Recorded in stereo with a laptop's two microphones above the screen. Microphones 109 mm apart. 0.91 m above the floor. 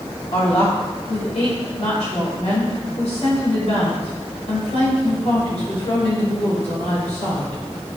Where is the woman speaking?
80° left, 3.5 m.